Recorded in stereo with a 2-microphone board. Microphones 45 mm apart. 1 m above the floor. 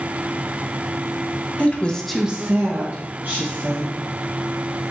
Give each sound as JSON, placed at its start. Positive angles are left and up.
{"t": 1.6, "sound": "a woman speaking", "side_deg": 35, "distance_m": 0.8}